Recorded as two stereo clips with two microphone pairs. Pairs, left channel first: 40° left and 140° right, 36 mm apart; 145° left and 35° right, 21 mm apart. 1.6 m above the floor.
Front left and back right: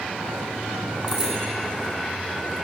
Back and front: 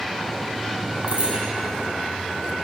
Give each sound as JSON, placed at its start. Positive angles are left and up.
{"t": 1.1, "sound": "a bicycle bell", "azimuth_deg": -70, "distance_m": 5.5}